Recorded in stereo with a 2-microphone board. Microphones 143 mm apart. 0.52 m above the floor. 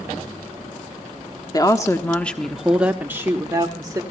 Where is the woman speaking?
30° left (ahead or behind), 1.1 m; by 4.0 s 25° right (ahead or behind), 1.7 m.